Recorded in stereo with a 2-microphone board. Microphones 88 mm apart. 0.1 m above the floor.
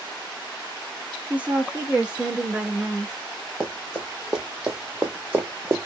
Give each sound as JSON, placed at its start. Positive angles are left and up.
{"t": 1.3, "sound": "a woman speaking", "side_deg": -15, "distance_m": 1.8}
{"t": 3.6, "sound": "running footsteps", "side_deg": 0, "distance_m": 1.7}